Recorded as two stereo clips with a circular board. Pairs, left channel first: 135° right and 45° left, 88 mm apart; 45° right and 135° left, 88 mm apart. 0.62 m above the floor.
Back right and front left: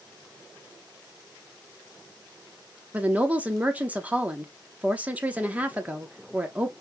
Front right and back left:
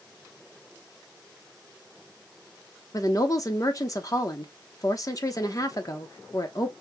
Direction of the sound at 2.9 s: 20° right.